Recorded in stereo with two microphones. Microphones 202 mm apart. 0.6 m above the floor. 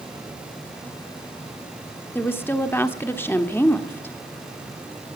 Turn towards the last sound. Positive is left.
turn(degrees=10)  # may be behind; listen again after turning